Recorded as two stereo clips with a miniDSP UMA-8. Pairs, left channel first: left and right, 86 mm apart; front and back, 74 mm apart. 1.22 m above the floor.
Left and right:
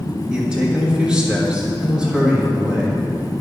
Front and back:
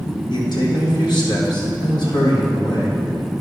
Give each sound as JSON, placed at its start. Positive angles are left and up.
{"t": 0.3, "sound": "a man speaking", "azimuth_deg": -10, "distance_m": 1.6}